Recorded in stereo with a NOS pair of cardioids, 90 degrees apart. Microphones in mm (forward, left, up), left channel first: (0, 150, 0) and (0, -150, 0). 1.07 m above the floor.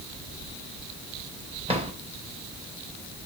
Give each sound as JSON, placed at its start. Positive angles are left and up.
{"t": 1.7, "sound": "a drawer", "azimuth_deg": -20, "distance_m": 3.5}